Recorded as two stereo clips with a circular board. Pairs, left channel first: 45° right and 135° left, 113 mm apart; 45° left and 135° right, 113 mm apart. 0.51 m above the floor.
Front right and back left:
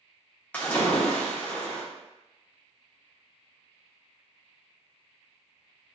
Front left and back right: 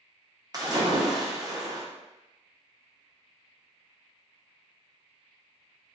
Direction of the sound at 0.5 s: 115° right.